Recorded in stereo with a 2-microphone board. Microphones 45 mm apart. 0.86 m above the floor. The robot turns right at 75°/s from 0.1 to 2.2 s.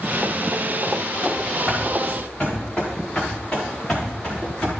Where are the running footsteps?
45° right (ahead or behind), 3 m; by 4.7 s 15° left (ahead or behind), 5 m.